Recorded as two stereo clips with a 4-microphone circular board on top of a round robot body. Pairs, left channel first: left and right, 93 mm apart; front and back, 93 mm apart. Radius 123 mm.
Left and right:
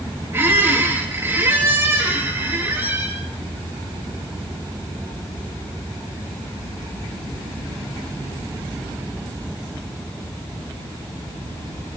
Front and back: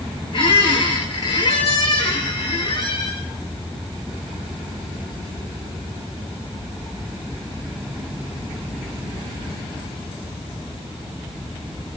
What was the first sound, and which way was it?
A squeak, 25° right.